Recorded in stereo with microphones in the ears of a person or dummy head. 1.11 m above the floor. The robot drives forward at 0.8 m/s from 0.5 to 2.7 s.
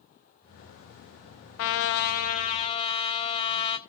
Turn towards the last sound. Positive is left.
turn(degrees=30)  # may be behind; listen again after turning